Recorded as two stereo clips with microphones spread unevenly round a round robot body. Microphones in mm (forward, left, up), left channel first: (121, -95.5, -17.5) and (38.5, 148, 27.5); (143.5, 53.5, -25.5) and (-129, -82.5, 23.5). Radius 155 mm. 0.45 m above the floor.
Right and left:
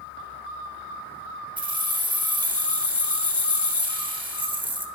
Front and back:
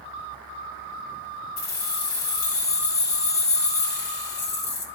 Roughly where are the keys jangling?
Ahead left.